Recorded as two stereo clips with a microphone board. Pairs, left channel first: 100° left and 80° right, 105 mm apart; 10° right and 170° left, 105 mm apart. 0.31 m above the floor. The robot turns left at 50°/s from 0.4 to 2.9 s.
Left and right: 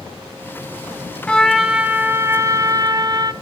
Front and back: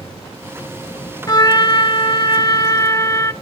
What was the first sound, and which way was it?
A trumpet, 25° left.